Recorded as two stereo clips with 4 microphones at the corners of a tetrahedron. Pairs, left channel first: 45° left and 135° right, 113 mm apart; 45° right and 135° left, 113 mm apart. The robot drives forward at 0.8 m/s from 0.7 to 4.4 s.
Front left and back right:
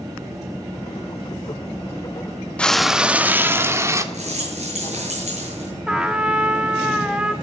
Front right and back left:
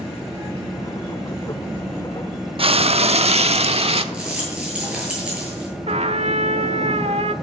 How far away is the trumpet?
About 1.4 m.